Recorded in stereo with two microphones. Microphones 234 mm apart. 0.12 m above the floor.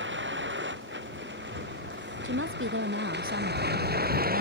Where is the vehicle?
55° right (ahead or behind); by 4.4 s 40° right (ahead or behind).